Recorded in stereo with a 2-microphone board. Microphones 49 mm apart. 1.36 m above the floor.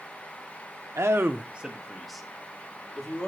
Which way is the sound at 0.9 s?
70° right (ahead or behind).